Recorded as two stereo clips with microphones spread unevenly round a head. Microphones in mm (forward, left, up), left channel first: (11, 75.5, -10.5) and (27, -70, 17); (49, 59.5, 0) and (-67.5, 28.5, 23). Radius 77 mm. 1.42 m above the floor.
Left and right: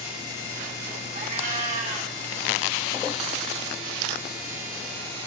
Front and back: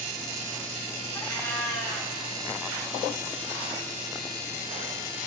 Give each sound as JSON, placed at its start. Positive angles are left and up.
{"t": 1.1, "sound": "a cat meowing", "azimuth_deg": -65, "distance_m": 1.5}